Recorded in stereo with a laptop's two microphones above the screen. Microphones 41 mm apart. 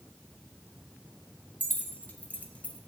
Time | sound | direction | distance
1.6 | keys jangling | 50° left (ahead or behind) | 2 m